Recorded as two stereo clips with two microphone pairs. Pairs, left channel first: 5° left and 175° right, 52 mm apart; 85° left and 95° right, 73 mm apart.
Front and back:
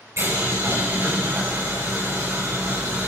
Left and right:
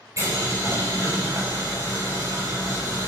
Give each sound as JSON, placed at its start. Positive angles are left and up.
{"t": 0.2, "sound": "boiling", "azimuth_deg": -145, "distance_m": 6.0}